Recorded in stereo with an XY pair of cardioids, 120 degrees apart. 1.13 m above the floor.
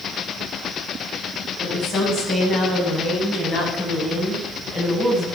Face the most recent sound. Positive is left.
turn(degrees=20)